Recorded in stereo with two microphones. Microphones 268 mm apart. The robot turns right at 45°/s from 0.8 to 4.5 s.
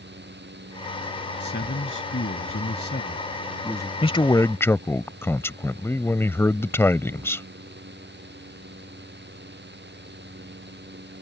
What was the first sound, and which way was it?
A man speaking, 55° left.